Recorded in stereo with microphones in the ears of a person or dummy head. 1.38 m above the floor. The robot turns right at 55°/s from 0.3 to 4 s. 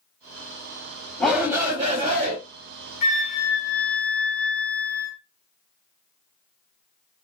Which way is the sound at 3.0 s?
125° left.